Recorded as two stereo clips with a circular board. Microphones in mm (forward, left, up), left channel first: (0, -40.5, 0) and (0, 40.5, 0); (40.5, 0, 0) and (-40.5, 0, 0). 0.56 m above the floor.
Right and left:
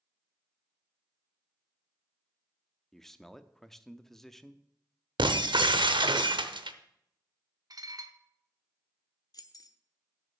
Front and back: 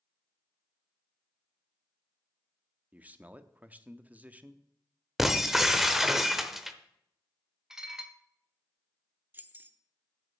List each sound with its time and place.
2.9 s a man speaking: 170° right, 0.6 m
5.2 s breaking glass: 95° left, 0.8 m
7.7 s dishes clattering: 100° left, 0.9 m
9.3 s keys jangling: 120° right, 0.8 m